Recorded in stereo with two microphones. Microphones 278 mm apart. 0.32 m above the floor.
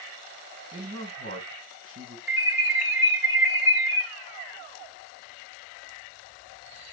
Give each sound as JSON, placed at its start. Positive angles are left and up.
{"t": 0.7, "sound": "a man speaking", "side_deg": -45, "distance_m": 2.5}
{"t": 2.3, "sound": "an alarm", "side_deg": -5, "distance_m": 3.0}